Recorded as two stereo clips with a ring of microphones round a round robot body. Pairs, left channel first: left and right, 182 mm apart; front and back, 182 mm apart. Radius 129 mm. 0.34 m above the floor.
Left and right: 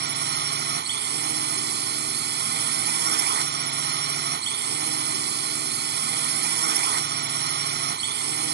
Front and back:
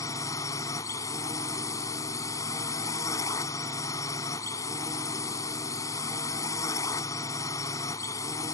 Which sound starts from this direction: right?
A drone, at 0.0 s.